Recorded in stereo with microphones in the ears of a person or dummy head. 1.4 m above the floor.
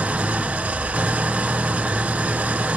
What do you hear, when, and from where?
0.0 s an engine running: 5° right (ahead or behind), 0.7 m